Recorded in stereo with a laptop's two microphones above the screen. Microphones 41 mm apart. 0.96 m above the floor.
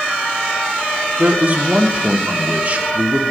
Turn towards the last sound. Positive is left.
turn(degrees=-40)  # may be behind; listen again after turning